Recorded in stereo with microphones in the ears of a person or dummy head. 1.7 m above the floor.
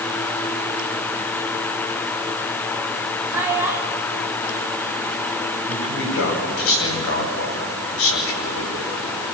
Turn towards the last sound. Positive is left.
turn(degrees=75)  # may be behind; listen again after turning